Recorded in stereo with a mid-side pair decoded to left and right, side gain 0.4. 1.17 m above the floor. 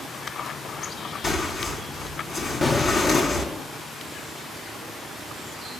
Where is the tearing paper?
55° left, 4.5 m.